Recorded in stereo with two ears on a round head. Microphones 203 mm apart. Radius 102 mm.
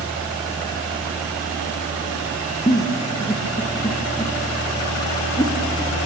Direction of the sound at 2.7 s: 15° left (ahead or behind).